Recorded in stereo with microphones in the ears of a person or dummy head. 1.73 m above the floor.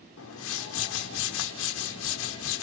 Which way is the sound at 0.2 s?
75° left (ahead or behind).